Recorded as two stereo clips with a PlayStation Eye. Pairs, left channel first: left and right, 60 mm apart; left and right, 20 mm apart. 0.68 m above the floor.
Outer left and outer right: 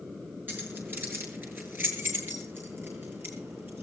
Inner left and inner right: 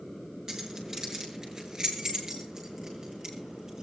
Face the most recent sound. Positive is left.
turn(degrees=-40)  # may be behind; listen again after turning